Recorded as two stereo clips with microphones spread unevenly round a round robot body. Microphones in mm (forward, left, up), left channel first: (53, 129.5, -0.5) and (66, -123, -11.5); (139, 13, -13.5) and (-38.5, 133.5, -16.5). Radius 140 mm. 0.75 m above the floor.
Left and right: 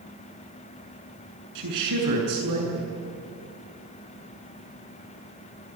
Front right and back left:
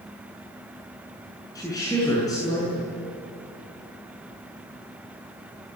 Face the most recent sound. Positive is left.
turn(degrees=-110)